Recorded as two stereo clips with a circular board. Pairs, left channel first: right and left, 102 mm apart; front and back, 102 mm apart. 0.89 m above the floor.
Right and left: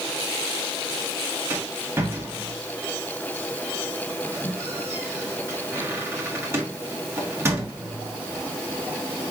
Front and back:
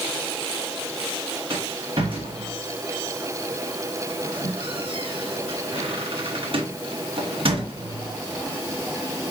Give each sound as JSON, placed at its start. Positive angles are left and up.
{"t": 1.5, "sound": "a rattle", "azimuth_deg": 155, "distance_m": 1.2}